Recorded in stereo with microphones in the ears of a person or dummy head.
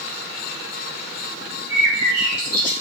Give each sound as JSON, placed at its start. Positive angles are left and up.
{"t": 1.7, "sound": "a bird", "side_deg": 75, "distance_m": 1.8}